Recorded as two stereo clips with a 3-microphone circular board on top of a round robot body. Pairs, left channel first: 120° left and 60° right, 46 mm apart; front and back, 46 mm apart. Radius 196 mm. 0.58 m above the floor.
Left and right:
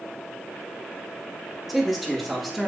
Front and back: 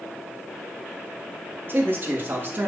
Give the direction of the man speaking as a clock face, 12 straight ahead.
5 o'clock.